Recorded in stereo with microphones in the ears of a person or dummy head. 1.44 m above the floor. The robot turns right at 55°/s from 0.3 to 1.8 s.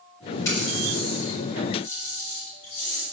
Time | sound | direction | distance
0.5 | a running tap | 15° left (ahead or behind) | 6 m